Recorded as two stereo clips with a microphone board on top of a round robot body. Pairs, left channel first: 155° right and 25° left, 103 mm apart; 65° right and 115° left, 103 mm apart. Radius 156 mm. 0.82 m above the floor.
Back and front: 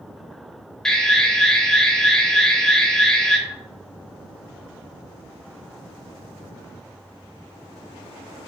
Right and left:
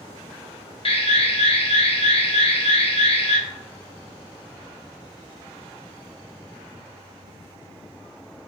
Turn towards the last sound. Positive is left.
turn(degrees=-75)